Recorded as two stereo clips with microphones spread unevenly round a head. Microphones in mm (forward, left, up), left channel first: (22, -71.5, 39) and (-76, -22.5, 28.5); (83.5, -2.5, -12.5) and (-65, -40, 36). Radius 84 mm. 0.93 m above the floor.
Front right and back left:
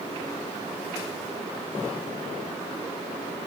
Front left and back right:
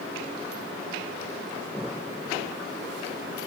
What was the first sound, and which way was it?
Only background noise.